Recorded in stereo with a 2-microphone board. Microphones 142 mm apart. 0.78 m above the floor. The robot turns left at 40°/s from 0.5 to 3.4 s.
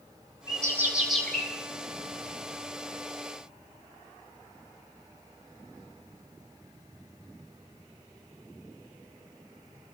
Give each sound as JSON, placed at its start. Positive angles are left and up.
{"t": 0.5, "sound": "a bird", "azimuth_deg": -155, "distance_m": 7.0}